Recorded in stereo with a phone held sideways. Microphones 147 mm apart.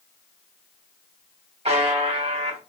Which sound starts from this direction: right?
A buzzer, at 1.6 s.